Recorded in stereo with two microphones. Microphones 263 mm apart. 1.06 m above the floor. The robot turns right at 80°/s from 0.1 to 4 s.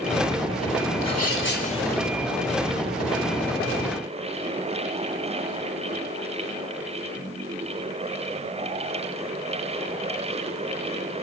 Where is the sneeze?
100° left, 4 m; by 2.0 s straight behind, 4 m.